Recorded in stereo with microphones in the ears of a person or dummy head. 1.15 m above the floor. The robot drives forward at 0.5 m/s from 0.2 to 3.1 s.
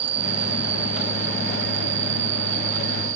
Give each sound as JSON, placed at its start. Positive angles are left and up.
{"t": 0.0, "sound": "an insect", "side_deg": -40}